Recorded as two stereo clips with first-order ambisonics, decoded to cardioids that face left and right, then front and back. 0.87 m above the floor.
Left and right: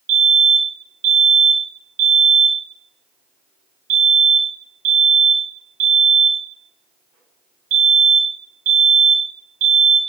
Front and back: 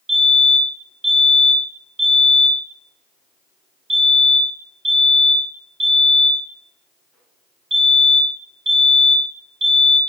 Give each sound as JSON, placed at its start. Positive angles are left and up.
{"t": 0.1, "sound": "a fire alarm", "azimuth_deg": -110, "distance_m": 3.5}